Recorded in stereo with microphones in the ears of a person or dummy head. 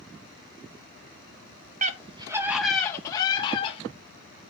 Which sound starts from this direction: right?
A scream, at 1.8 s.